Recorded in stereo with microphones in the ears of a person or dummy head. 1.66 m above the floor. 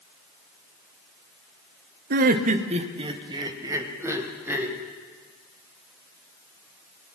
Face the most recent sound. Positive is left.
turn(degrees=-10)  # may be behind; listen again after turning